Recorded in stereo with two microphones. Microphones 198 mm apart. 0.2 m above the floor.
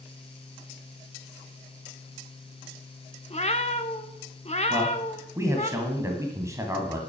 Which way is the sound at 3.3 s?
35° left (ahead or behind).